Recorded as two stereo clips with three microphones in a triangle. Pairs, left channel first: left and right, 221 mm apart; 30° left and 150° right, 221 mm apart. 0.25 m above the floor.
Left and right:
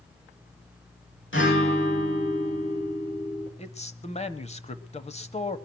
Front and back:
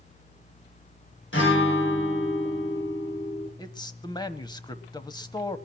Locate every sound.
1.3 s a guitar: 60° left, 7 m
3.6 s a man speaking: 80° left, 1.0 m